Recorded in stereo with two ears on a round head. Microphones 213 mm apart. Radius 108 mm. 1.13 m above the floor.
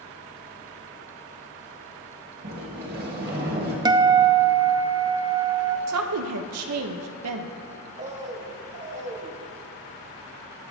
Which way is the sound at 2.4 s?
40° right (ahead or behind).